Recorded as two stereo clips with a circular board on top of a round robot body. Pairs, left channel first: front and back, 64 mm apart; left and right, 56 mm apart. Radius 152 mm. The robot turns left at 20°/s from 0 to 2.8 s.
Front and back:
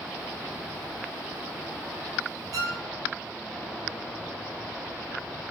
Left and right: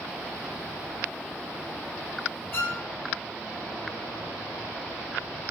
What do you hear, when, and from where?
2.5 s a violin: 150° left, 0.6 m; by 2.8 s 145° left, 0.6 m